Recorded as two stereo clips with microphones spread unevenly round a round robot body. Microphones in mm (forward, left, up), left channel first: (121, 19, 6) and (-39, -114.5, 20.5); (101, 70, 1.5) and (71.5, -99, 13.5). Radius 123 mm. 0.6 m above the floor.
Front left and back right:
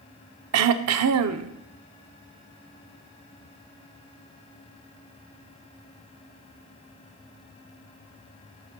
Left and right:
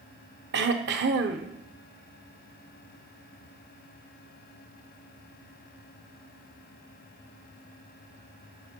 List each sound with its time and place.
0.5 s throat clearing: 145° right, 0.6 m